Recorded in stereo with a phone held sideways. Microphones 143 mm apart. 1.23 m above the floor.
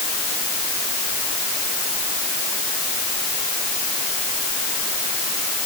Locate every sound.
Only background noise.